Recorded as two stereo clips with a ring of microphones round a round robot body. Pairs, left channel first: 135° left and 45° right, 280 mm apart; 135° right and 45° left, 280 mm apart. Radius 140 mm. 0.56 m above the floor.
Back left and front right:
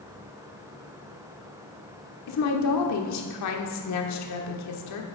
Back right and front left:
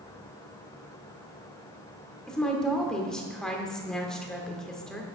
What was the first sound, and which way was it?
A woman speaking, 140° left.